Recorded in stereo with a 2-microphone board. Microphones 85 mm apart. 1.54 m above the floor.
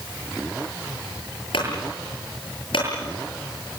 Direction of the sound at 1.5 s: 75° left (ahead or behind).